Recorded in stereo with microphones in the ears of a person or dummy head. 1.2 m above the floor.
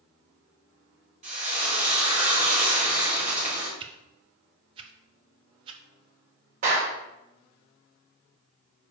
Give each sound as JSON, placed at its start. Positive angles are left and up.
{"t": 1.2, "sound": "frying", "side_deg": -35, "distance_m": 2.0}
{"t": 3.8, "sound": "a whoosh", "side_deg": -30, "distance_m": 0.7}
{"t": 6.6, "sound": "a clap", "side_deg": -45, "distance_m": 3.5}